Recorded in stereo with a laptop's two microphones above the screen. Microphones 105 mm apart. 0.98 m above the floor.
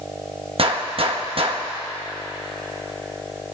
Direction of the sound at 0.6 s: 65° right (ahead or behind).